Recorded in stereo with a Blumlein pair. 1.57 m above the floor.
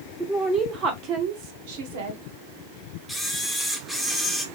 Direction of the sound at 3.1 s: 5° right.